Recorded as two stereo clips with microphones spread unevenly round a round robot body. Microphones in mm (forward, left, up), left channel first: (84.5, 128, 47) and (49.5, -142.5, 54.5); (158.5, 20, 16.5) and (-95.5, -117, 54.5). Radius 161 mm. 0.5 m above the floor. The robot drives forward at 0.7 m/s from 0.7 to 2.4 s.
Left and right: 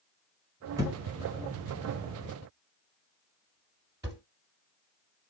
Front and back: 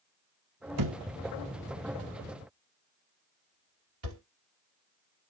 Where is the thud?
Straight behind, 1.0 m.